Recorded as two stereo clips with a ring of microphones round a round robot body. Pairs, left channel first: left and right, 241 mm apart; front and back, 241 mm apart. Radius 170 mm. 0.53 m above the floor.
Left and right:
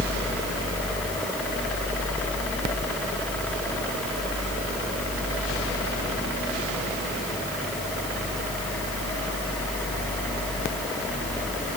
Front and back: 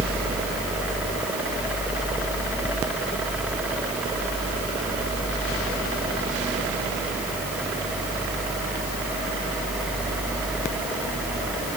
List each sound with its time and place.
Only background noise.